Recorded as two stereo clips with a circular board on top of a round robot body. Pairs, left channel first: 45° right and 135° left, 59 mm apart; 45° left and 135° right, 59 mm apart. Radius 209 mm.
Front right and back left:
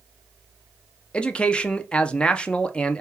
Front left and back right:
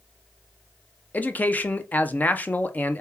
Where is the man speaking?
10° left, 0.6 m.